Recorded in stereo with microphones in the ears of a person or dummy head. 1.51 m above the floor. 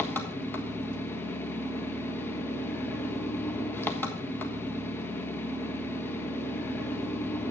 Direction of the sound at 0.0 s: 15° left (ahead or behind).